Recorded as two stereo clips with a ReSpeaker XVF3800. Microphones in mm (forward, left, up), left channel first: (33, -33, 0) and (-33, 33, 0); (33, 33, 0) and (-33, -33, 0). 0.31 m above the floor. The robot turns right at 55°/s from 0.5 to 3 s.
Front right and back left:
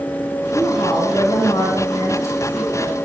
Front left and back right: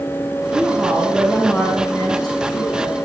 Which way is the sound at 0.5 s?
85° right.